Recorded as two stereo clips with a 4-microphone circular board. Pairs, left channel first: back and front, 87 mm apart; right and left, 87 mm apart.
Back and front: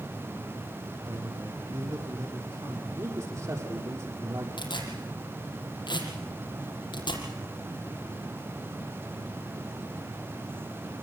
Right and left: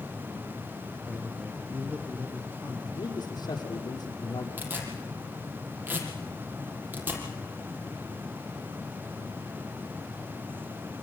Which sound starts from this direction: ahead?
A man speaking, at 1.1 s.